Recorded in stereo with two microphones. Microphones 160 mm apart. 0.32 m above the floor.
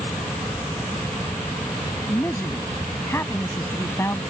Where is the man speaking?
20° left (ahead or behind).